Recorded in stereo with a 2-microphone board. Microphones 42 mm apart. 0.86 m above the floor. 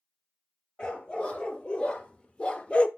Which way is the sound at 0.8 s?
20° left (ahead or behind).